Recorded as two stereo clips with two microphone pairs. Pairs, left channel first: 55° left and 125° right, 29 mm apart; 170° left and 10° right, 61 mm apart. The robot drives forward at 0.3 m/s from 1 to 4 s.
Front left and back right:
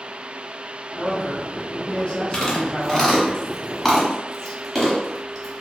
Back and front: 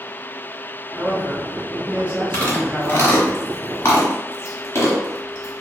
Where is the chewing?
115° left, 1.1 m; by 5.6 s 135° left, 1.3 m.